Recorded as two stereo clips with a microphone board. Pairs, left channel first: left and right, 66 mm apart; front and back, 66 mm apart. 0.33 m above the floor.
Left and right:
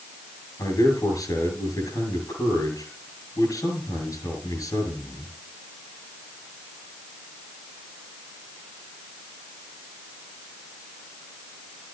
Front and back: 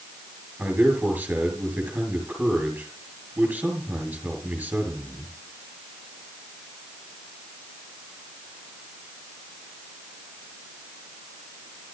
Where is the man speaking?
115° left, 6 m.